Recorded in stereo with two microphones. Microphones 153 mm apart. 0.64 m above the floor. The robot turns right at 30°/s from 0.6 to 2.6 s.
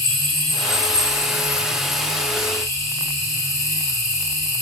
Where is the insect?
40° right, 4 m; by 4.6 s 20° left, 4 m.